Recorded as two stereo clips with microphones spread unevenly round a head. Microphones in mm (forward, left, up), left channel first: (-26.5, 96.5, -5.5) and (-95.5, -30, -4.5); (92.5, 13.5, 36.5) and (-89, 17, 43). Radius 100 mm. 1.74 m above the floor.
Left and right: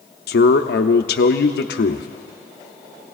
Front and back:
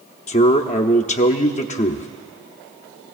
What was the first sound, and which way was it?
A man speaking, 55° left.